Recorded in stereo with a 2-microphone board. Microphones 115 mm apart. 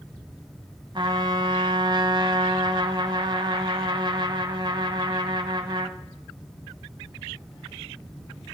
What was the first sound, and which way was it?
A trumpet, 45° right (ahead or behind).